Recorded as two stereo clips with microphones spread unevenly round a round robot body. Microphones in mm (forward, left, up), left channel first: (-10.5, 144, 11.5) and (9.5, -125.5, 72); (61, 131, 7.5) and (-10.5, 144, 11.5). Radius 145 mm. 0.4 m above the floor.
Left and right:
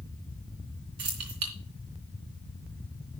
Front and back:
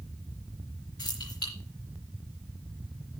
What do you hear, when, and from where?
1.0 s keys jangling: 90° right, 3.5 m